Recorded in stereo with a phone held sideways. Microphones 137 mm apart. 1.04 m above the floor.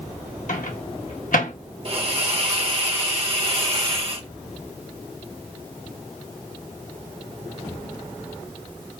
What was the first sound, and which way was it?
A microwave, 75° left (ahead or behind).